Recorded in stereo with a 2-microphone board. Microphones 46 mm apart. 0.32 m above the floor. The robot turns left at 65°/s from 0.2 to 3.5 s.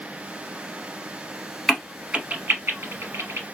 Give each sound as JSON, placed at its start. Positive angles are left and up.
{"t": 1.7, "sound": "a crack", "side_deg": 5, "distance_m": 0.7}